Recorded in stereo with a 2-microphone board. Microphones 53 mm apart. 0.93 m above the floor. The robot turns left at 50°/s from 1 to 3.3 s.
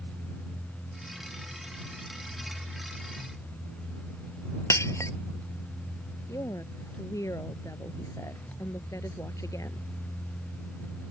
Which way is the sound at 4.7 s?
70° left (ahead or behind).